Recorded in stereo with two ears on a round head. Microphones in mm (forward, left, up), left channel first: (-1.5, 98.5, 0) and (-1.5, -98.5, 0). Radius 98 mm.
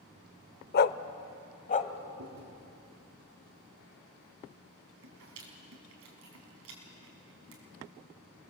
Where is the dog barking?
45° left (ahead or behind), 0.6 m; by 1.9 s 35° left (ahead or behind), 1.4 m.